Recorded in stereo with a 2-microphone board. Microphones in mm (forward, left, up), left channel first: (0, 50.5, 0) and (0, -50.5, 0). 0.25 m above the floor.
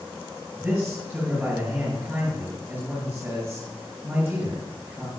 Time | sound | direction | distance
0.6 | a man speaking | 15° right (ahead or behind) | 6.5 m